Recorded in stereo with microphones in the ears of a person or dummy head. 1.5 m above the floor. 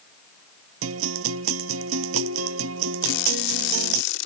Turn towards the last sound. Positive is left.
turn(degrees=75)  # may be behind; listen again after turning